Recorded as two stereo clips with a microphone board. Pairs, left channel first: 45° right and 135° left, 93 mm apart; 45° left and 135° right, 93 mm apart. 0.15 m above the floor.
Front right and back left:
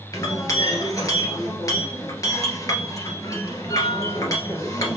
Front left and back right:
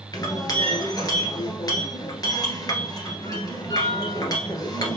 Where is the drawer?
I don't hear a drawer.